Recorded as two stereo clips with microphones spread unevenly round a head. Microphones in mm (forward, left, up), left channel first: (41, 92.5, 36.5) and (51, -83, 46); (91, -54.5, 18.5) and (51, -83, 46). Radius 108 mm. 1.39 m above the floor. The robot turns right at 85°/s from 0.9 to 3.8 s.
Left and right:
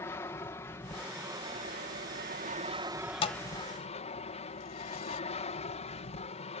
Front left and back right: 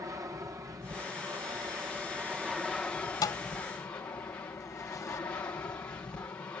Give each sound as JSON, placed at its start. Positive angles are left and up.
{"t": 0.0, "sound": "an aircraft", "azimuth_deg": 165}
{"t": 3.2, "sound": "a thud", "azimuth_deg": 45}